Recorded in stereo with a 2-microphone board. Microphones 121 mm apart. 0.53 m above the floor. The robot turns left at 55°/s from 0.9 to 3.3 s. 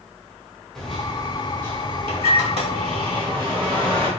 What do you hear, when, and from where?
0.8 s a microwave: 5° left, 1.2 m; by 4.1 s 130° right, 1.2 m